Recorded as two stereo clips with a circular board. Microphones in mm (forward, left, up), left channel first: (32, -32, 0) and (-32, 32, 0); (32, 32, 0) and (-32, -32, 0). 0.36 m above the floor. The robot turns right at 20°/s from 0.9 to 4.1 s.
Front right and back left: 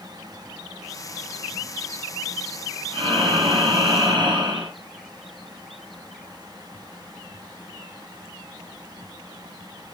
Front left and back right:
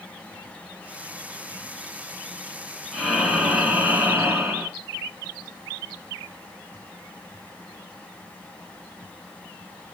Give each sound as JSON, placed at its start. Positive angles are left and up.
{"t": 2.9, "sound": "breathing", "azimuth_deg": 130, "distance_m": 1.5}